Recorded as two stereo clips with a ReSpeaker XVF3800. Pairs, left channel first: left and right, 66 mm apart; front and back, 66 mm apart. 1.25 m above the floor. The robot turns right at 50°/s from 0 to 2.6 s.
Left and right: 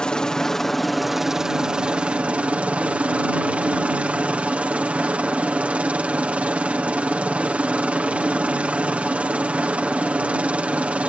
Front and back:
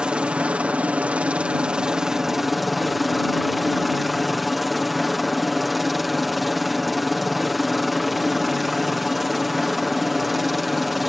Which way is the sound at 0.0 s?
135° left.